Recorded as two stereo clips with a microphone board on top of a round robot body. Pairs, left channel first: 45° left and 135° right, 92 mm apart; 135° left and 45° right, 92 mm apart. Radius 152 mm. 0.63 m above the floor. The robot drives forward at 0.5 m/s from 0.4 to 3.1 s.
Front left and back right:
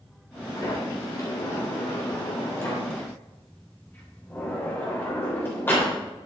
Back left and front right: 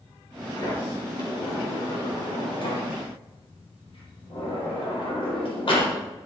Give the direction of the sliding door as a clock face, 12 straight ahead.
9 o'clock.